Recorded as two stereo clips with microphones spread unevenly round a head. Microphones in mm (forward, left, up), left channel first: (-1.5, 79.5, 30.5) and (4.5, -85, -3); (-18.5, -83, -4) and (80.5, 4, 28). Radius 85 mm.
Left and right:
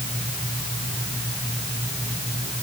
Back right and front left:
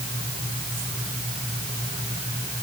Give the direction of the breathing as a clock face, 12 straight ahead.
No breathing in this recording.